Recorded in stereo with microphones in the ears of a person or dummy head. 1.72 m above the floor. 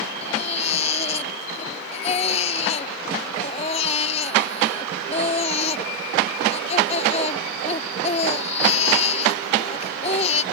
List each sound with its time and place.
0.2 s a baby crying: 40° left (ahead or behind)